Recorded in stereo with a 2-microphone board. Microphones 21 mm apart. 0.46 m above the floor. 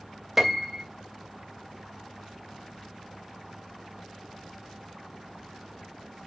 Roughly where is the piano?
Right.